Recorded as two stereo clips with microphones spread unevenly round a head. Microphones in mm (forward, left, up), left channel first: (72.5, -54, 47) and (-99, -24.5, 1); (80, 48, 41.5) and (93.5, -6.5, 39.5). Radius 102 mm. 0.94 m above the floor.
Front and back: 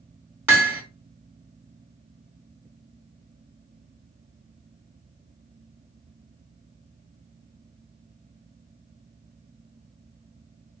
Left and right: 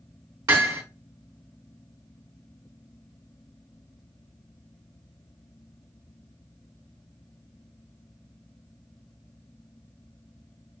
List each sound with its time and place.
0.5 s hammering: 110° right, 1.8 m